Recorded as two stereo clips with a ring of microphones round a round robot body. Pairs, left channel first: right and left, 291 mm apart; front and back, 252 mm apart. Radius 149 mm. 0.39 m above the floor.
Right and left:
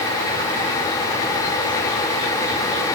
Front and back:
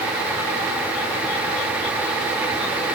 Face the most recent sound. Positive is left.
No sound to turn to.